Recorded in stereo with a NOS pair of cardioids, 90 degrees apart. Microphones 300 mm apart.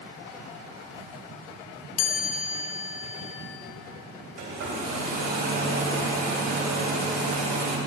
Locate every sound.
2.0 s a chime: 60° left, 0.7 m
4.4 s a hair dryer: 55° right, 2.5 m